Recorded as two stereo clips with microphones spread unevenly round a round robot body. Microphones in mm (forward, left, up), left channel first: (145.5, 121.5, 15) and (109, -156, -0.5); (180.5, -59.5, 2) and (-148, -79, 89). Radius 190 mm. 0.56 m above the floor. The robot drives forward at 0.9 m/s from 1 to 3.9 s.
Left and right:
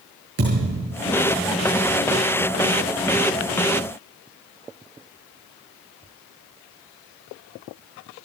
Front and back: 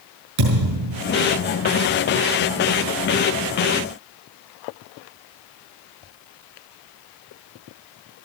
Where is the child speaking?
No child speaking in this recording.